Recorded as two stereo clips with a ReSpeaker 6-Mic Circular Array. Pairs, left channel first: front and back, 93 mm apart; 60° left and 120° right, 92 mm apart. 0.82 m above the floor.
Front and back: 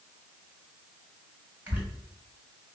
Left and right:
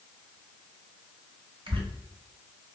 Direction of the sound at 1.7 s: 110° right.